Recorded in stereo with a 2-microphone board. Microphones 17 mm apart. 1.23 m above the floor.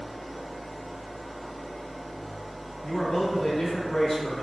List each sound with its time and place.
0.0 s an engine running: 10° left (ahead or behind), 1.4 m
2.8 s a man speaking: 20° left (ahead or behind), 0.9 m